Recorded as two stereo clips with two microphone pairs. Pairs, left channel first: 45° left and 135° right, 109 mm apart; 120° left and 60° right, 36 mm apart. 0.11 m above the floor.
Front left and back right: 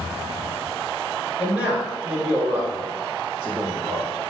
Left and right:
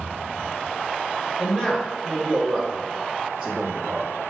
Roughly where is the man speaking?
Behind left.